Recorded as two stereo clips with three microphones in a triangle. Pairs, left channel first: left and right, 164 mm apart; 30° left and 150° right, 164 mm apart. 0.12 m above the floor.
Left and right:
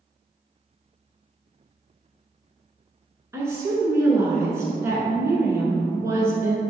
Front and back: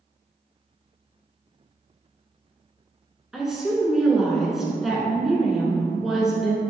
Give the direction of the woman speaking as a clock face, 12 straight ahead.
2 o'clock.